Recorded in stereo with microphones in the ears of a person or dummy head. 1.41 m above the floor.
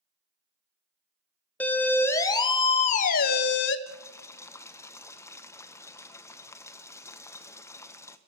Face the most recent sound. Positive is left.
turn(degrees=15)  # may be behind; listen again after turning